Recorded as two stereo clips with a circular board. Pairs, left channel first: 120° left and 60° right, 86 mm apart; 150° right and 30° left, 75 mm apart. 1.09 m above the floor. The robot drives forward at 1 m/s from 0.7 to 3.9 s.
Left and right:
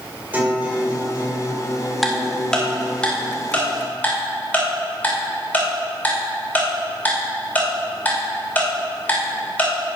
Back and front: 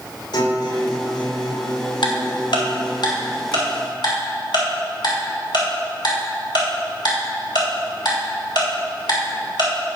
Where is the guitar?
130° right, 3 m; by 3.0 s 150° right, 5 m.